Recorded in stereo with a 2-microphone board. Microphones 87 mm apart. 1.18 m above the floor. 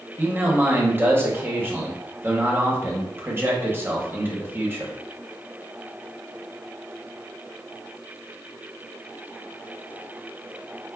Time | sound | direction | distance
0.2 | a man speaking | 25° right (ahead or behind) | 0.8 m